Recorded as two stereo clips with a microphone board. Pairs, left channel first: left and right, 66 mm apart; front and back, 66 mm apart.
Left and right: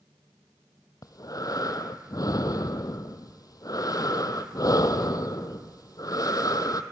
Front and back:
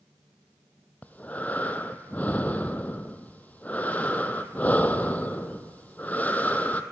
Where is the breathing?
65° left, 0.9 m.